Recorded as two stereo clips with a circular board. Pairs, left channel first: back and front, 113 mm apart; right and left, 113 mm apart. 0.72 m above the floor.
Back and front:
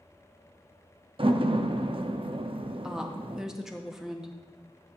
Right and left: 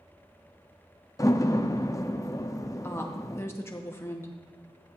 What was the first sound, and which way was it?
A door slam, 30° right.